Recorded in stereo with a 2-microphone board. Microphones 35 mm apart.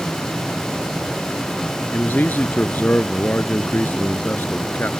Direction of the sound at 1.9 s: 60° left (ahead or behind).